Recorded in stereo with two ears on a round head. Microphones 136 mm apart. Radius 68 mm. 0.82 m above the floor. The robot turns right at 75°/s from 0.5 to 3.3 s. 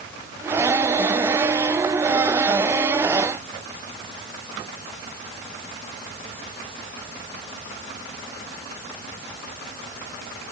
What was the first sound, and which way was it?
Only background noise.